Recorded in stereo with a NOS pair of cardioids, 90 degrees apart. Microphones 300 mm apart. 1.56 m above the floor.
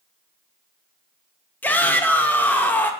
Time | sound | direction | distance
1.6 | a shout | 5° left | 0.7 m